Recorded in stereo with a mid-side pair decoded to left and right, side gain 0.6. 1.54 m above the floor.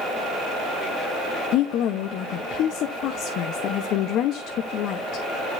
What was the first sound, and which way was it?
A woman speaking, 65° left.